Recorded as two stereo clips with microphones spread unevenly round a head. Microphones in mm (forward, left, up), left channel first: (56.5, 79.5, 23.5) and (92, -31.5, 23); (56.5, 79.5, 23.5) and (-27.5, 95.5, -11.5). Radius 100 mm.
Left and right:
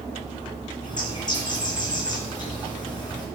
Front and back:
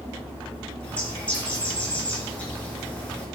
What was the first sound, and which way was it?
A bird, 55° left.